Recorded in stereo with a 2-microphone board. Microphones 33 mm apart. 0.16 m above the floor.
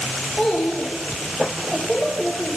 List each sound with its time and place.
0.4 s a child speaking: 20° left (ahead or behind), 6 m; by 2.6 s 10° left (ahead or behind), 5.5 m